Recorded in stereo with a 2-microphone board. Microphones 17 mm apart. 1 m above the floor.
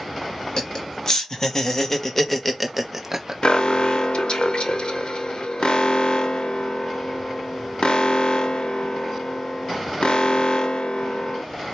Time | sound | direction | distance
0.6 | laughter | 45° left (ahead or behind) | 1.4 m
3.4 | an alarm | 65° left (ahead or behind) | 0.6 m